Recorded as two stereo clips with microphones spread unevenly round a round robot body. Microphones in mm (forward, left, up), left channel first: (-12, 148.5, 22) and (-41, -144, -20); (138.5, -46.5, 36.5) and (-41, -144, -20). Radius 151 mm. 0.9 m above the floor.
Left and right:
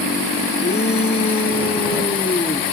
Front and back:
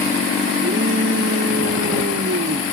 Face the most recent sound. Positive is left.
turn(degrees=160)